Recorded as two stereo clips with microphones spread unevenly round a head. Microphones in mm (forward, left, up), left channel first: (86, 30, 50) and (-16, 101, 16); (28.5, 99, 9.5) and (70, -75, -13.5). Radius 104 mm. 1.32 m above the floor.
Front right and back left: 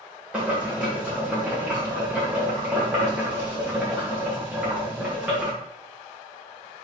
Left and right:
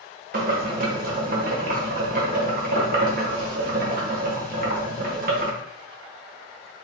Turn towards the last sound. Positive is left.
turn(degrees=-130)